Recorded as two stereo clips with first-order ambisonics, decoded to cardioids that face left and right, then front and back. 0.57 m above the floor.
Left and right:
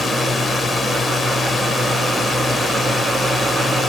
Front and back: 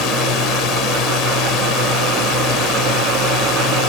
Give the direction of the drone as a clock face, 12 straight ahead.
11 o'clock.